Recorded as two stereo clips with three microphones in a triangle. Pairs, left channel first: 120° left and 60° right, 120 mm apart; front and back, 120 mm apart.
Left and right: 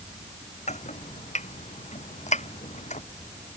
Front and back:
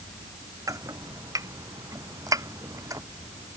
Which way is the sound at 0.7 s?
120° left.